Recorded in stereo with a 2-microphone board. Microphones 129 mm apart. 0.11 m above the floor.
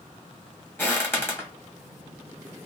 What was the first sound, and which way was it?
Footsteps, 15° left (ahead or behind).